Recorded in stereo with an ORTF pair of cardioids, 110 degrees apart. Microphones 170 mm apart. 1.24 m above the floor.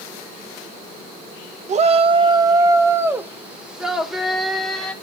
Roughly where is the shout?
Ahead right.